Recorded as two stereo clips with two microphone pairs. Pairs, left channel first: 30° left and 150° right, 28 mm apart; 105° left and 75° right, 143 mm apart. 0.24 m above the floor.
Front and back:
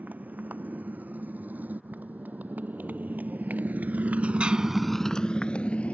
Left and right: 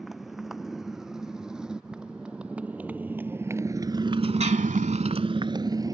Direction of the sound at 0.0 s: 165° right.